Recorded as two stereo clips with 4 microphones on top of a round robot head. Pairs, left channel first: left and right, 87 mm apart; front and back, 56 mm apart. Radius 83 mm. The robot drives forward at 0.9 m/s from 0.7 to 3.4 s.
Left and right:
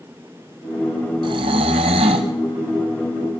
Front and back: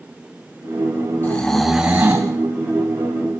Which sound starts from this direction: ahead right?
Snoring, at 1.2 s.